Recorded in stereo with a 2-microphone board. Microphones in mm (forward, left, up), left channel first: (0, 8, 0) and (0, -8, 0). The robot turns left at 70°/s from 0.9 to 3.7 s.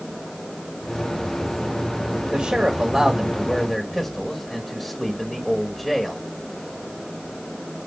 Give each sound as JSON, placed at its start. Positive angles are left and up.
{"t": 2.3, "sound": "a man speaking", "azimuth_deg": -95, "distance_m": 1.8}